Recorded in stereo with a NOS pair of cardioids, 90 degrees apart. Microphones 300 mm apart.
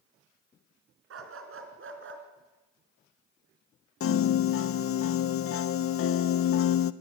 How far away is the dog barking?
About 3.5 m.